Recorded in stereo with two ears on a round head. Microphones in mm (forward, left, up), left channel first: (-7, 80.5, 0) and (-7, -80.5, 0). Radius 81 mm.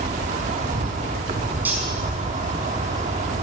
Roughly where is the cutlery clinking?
Centre.